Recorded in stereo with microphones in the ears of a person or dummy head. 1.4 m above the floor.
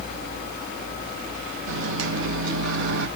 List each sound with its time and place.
1.7 s a microwave: 75° right (ahead or behind), 1.3 m